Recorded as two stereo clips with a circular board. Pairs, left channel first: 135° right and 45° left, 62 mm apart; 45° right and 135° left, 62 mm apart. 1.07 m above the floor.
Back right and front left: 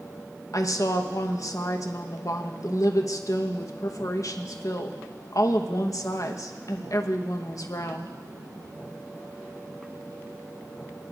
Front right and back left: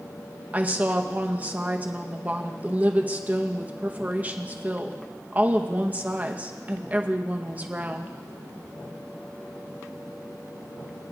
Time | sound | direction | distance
0.5 | a woman speaking | 160° right | 0.9 m